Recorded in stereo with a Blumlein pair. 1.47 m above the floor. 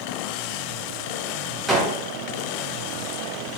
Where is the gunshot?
10° right, 0.8 m.